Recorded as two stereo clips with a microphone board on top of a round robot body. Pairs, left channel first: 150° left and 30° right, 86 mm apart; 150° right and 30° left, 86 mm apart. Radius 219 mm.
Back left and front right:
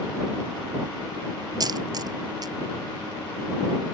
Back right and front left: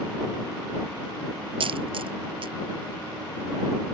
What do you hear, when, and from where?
1.6 s a dropped coin: 15° left